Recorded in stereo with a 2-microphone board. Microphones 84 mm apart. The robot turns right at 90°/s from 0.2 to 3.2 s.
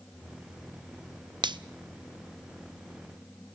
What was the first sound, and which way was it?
A finger snap, 70° right (ahead or behind).